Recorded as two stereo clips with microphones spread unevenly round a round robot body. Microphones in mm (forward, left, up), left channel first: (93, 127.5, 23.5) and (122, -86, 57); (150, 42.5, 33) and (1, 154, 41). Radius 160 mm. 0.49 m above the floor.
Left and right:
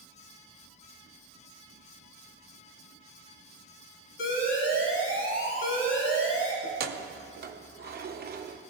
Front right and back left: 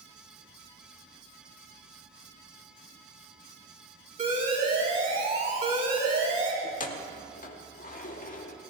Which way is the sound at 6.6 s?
45° right.